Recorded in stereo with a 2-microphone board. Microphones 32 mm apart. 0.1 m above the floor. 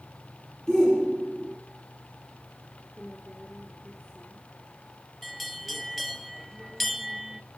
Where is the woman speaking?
20° left (ahead or behind), 2.5 m.